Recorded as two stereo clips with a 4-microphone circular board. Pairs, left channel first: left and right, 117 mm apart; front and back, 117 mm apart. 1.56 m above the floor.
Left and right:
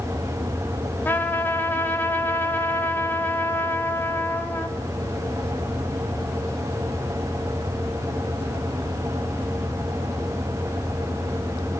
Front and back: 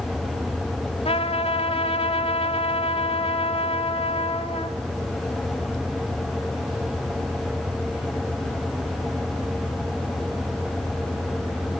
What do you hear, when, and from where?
1.1 s a trumpet: 20° left, 2 m